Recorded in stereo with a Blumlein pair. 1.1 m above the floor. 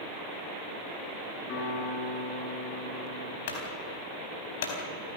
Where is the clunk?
60° left, 4 m.